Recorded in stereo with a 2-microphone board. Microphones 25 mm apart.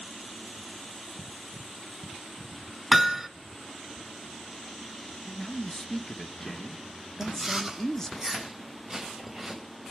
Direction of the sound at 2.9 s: 10° right (ahead or behind).